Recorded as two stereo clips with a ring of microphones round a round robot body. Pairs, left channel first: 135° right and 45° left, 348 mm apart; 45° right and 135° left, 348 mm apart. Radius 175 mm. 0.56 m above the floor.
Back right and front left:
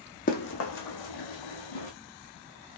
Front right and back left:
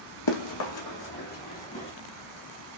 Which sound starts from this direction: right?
Running footsteps, at 0.3 s.